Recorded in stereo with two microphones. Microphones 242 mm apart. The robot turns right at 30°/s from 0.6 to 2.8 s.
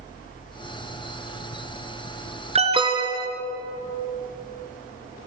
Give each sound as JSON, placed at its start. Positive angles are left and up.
{"t": 2.5, "sound": "an alarm", "side_deg": -25, "distance_m": 2.0}